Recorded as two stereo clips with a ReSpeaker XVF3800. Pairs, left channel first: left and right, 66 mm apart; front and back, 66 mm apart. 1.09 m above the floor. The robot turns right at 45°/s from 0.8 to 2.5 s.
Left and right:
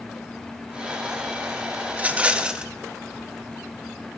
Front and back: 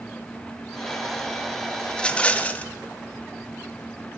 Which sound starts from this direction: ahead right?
A rattle, at 1.9 s.